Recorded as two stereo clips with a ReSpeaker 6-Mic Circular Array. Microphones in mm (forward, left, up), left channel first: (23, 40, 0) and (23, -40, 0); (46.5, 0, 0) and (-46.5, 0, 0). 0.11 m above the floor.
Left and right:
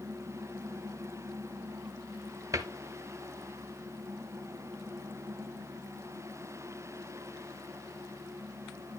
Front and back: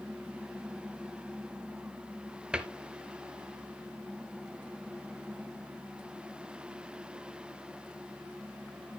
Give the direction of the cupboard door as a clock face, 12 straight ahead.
4 o'clock.